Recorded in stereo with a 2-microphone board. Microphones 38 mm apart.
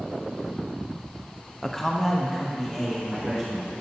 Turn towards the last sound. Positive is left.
turn(degrees=0)  # may be behind; listen again after turning